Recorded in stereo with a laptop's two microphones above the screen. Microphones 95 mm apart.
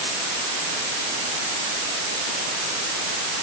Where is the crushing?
I don't hear crushing.